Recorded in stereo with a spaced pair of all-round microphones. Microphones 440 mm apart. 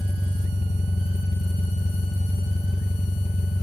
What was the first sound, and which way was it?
An engine running, 15° left (ahead or behind).